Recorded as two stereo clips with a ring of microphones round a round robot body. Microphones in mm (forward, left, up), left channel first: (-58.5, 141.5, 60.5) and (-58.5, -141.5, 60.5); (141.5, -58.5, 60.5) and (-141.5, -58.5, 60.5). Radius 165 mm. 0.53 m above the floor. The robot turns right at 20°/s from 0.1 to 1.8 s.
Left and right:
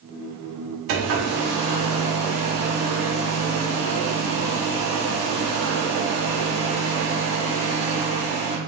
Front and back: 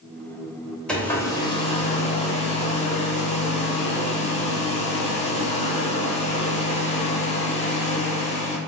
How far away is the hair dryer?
About 0.8 m.